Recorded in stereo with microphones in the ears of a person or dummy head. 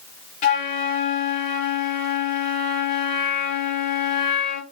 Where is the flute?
35° left (ahead or behind), 0.9 m.